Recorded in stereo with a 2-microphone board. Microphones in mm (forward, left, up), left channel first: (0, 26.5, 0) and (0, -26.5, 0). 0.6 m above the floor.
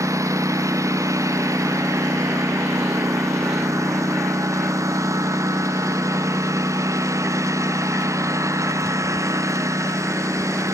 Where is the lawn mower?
90° right; by 10.7 s 75° right (ahead or behind).